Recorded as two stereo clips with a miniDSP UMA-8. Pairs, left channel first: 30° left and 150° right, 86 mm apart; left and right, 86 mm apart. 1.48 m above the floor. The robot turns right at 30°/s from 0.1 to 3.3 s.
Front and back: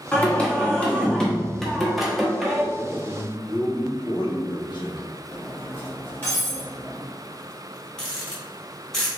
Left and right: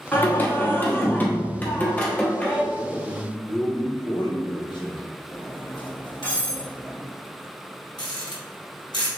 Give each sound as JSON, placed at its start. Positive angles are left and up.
{"t": 0.1, "sound": "singing", "azimuth_deg": 60, "distance_m": 0.9}
{"t": 2.7, "sound": "a man speaking", "azimuth_deg": 40, "distance_m": 1.3}
{"t": 5.3, "sound": "cutlery clinking", "azimuth_deg": 95, "distance_m": 1.9}
{"t": 8.0, "sound": "a rattle", "azimuth_deg": 115, "distance_m": 1.4}